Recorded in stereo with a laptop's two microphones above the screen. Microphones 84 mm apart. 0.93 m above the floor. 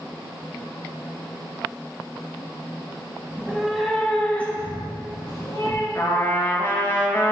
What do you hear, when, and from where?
3.3 s a cat meowing: 15° right (ahead or behind), 2 m; by 5.8 s 45° left (ahead or behind), 3.5 m
6.0 s a trumpet: 30° left (ahead or behind), 2.5 m